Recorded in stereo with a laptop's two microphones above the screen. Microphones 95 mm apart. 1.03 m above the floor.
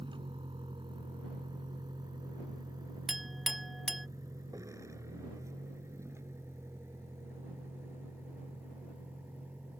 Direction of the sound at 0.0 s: 60° right (ahead or behind).